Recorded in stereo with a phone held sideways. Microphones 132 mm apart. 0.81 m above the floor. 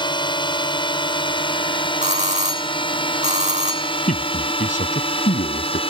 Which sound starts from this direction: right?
A doorbell, at 2.0 s.